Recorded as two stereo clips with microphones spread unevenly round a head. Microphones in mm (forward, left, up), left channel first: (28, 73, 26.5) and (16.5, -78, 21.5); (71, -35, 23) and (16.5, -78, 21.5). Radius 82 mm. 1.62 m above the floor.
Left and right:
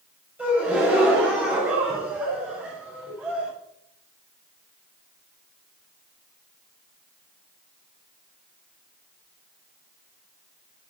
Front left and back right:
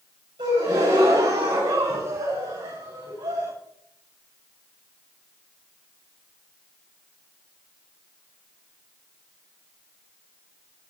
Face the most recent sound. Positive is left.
turn(degrees=-175)